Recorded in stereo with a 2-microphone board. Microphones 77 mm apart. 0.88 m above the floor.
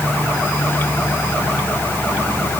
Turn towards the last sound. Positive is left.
No sound to turn to.